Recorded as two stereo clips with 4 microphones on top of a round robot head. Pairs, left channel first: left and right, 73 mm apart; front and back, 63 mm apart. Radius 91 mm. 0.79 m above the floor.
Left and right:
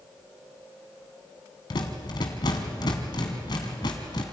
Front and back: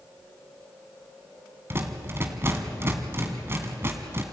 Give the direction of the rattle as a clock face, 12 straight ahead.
8 o'clock.